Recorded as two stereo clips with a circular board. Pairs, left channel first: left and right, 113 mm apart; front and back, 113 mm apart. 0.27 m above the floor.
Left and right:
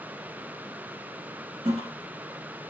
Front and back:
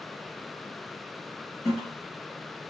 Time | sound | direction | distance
1.6 | a toilet flushing | 95° right | 3.5 m